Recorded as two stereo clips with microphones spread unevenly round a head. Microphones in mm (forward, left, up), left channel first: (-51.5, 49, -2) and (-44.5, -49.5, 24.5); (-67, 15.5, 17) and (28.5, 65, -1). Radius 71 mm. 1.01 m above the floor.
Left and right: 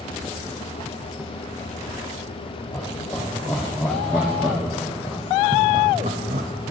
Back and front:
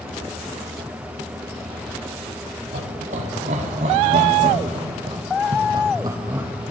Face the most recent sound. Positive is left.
turn(degrees=-50)